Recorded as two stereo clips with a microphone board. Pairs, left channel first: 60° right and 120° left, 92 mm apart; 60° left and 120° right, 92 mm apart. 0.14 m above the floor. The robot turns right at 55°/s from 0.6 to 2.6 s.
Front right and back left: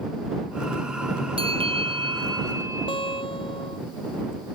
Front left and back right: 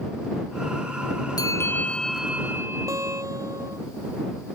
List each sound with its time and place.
1.4 s a bell: 110° left; by 3.2 s 175° left
2.9 s a guitar: 70° right